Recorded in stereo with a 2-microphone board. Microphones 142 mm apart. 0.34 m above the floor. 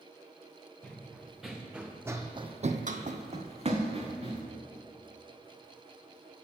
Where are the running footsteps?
5° left (ahead or behind), 1.9 m; by 4.4 s 35° right (ahead or behind), 1.8 m.